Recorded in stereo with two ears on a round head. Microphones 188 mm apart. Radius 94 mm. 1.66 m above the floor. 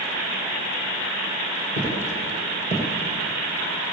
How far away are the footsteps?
About 4.5 m.